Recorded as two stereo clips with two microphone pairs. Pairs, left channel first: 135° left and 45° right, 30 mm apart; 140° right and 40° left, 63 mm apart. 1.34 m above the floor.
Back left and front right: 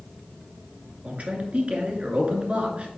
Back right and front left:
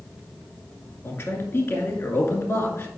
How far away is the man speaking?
About 2 m.